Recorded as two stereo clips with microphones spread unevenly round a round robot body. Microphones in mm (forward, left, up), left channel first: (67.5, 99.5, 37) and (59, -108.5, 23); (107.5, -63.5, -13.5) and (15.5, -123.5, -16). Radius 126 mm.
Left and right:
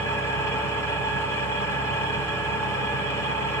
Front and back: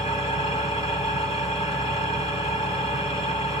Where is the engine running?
10° left, 1.9 m.